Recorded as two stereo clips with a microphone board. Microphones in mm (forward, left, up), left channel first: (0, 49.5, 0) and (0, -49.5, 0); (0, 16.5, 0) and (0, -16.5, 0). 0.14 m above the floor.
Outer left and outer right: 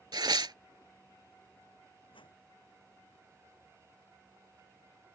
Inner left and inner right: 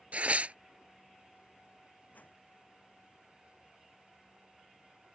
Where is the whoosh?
60° left (ahead or behind).